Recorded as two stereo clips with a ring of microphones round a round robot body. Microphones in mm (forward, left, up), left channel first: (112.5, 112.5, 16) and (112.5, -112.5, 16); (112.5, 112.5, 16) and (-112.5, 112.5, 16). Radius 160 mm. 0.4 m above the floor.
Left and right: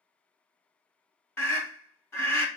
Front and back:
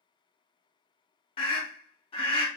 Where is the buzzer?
No buzzer in this recording.